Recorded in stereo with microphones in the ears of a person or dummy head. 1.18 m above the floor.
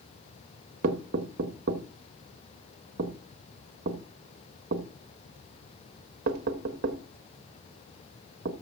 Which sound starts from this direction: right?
Knocking, at 0.8 s.